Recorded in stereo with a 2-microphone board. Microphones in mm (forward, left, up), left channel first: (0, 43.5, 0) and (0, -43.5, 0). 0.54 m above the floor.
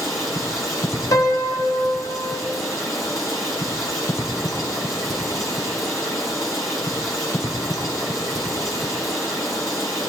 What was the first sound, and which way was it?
Running water, 50° left (ahead or behind).